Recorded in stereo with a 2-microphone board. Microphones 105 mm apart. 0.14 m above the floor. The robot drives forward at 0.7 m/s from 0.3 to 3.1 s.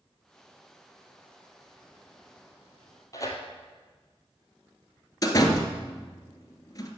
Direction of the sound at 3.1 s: 30° left (ahead or behind).